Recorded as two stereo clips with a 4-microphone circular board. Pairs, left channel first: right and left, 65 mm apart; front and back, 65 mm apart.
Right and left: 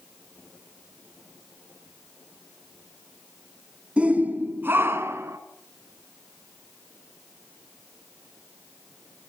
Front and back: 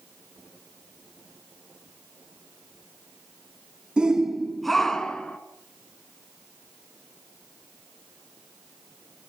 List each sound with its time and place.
4.0 s a shout: 130° left, 1.1 m; by 5.4 s 70° left, 1.5 m